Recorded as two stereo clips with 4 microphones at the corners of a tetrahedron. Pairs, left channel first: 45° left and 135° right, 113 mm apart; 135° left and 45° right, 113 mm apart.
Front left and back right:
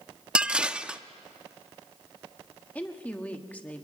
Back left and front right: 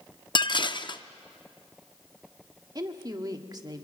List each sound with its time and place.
0.3 s dishes clattering: 145° left, 0.5 m
2.8 s a woman speaking: 25° right, 1.4 m